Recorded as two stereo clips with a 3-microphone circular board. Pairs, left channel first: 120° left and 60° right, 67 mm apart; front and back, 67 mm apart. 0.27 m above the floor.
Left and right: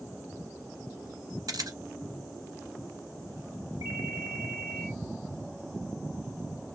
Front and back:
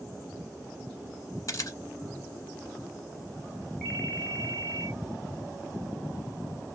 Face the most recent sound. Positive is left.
turn(degrees=-75)